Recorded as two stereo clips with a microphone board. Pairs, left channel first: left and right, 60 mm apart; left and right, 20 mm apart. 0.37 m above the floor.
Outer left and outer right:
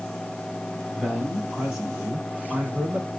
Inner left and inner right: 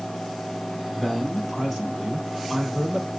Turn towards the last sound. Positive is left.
turn(degrees=-30)  # may be behind; listen again after turning